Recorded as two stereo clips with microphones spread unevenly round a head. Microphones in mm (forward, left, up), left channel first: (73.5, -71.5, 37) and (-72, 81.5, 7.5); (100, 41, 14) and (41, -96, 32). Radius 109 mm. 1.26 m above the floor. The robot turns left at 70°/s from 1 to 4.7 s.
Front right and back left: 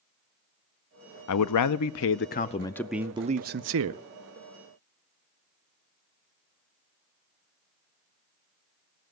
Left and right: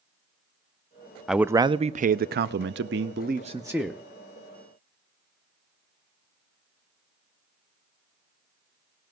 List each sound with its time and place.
1.3 s a man speaking: 25° right, 0.5 m; by 4.0 s 145° left, 0.5 m